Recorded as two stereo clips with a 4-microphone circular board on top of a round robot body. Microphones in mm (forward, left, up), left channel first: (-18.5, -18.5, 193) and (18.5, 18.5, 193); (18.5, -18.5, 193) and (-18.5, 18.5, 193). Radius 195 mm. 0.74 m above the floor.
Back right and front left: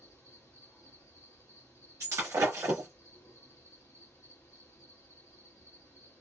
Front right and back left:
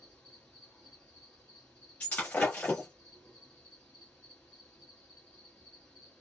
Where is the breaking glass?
15° left, 0.9 m.